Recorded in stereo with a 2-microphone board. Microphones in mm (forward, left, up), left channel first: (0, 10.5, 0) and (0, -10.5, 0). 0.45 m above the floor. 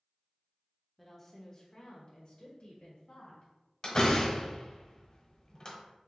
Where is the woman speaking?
5° left (ahead or behind), 0.8 m; by 3.5 s 65° left (ahead or behind), 1.9 m.